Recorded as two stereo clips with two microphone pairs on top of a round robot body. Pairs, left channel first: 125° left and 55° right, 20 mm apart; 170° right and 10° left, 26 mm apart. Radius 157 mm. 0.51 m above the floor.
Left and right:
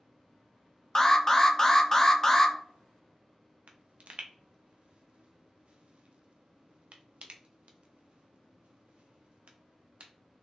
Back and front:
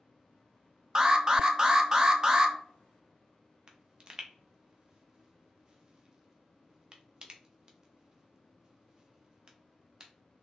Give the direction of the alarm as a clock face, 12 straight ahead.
10 o'clock.